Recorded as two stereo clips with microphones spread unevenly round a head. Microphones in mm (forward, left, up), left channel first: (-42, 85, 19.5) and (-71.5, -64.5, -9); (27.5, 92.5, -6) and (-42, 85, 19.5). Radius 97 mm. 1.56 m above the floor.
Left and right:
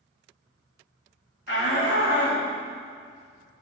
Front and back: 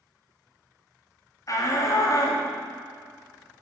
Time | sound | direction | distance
1.5 | a shout | 50° left | 2.5 m